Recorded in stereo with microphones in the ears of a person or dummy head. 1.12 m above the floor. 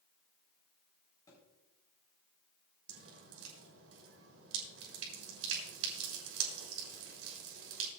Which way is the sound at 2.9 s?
75° right (ahead or behind).